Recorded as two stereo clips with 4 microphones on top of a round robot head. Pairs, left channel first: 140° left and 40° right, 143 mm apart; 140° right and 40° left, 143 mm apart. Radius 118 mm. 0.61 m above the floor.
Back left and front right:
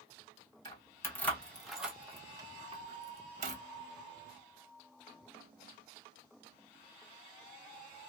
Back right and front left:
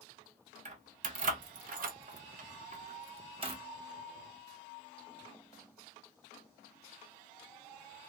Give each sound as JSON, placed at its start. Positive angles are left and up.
{"t": 0.7, "sound": "keys jangling", "azimuth_deg": 75, "distance_m": 1.3}